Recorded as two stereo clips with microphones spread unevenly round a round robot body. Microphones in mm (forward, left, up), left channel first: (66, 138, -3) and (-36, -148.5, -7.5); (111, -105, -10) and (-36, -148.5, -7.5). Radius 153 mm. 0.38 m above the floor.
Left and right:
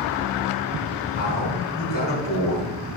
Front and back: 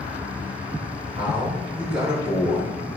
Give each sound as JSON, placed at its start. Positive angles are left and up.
{"t": 1.1, "sound": "a man speaking", "azimuth_deg": 130, "distance_m": 4.5}